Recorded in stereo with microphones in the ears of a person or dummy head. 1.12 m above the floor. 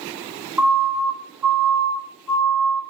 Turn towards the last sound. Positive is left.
turn(degrees=-15)  # may be behind; listen again after turning